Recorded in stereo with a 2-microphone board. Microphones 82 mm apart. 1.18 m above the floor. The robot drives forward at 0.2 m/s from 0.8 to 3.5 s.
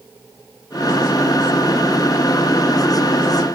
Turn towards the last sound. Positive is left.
No sound to turn to.